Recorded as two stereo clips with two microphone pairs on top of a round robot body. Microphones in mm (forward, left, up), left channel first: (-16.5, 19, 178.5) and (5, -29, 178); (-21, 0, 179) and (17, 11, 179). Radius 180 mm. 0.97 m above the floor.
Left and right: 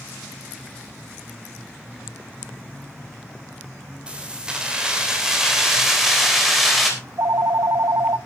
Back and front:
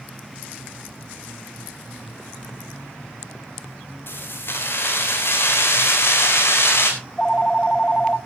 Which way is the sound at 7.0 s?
95° right.